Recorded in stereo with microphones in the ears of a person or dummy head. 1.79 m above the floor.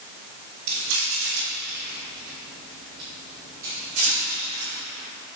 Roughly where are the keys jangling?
Right.